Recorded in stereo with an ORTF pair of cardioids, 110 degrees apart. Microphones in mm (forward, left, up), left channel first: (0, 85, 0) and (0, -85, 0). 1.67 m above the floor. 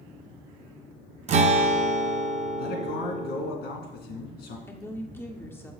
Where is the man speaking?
70° left, 1.9 m.